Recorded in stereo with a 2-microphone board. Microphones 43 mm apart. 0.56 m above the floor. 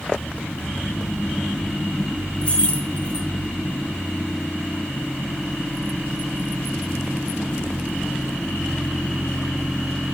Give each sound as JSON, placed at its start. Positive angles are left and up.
{"t": 2.4, "sound": "keys jangling", "side_deg": 25, "distance_m": 2.0}